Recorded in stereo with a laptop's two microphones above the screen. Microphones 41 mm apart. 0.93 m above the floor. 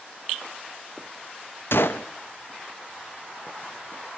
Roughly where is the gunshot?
Left.